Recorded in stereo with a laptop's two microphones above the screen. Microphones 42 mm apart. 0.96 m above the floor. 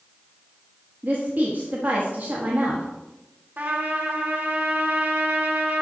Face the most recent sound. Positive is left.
turn(degrees=-50)  # may be behind; listen again after turning